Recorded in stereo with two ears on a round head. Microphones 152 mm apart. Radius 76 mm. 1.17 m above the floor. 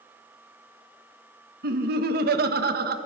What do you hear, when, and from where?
1.6 s laughter: 60° right (ahead or behind), 1.5 m